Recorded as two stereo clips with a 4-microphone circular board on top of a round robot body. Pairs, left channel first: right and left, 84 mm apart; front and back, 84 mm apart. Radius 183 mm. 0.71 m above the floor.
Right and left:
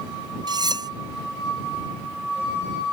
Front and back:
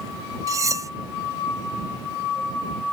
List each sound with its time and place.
0.5 s cutlery clinking: 130° left